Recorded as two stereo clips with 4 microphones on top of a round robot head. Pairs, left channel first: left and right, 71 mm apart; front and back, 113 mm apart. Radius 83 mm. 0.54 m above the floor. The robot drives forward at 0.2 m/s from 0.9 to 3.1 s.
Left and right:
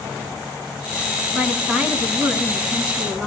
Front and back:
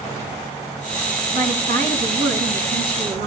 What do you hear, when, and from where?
1.3 s a woman speaking: 160° right, 5 m; by 3.3 s 165° right, 5 m